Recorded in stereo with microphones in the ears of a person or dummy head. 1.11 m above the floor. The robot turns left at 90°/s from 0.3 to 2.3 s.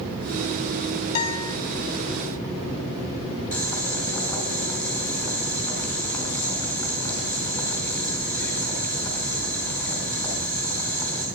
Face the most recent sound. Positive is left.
turn(degrees=20)  # may be behind; listen again after turning